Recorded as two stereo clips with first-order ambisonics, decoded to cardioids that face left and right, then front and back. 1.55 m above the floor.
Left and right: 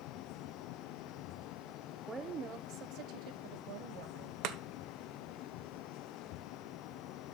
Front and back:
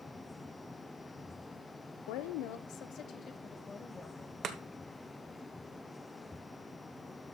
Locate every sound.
2.1 s a woman speaking: 10° right, 0.9 m; by 4.3 s 85° right, 2 m
4.4 s chopping: 125° right, 1.0 m